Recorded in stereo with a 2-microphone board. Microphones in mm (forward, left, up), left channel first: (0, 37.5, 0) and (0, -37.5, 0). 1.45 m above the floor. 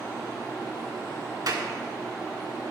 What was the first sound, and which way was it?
A clap, 55° right (ahead or behind).